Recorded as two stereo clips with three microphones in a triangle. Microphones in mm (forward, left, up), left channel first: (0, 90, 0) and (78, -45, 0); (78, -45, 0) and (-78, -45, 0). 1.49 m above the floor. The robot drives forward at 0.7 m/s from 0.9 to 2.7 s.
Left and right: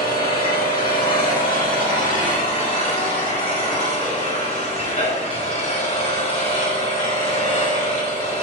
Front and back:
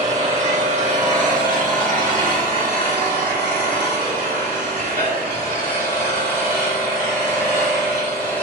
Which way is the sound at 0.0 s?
140° left.